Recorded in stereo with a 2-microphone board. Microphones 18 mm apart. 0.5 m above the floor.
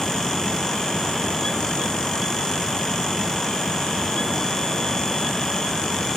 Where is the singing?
I don't hear singing.